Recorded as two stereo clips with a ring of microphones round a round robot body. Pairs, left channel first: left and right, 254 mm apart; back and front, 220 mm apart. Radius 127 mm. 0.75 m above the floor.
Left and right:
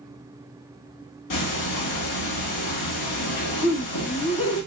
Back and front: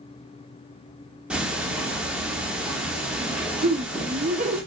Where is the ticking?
85° left, 1.3 m.